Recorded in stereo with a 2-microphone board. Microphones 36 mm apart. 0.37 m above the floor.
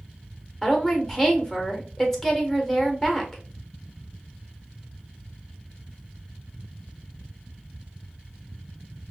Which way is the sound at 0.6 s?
10° left (ahead or behind).